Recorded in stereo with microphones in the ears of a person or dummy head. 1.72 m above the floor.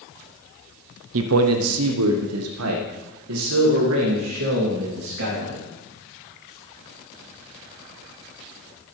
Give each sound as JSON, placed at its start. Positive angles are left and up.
{"t": 1.1, "sound": "a man speaking", "side_deg": -75, "distance_m": 0.9}